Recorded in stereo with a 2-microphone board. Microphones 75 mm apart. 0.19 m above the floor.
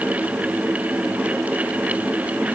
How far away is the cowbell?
No cowbell in this recording.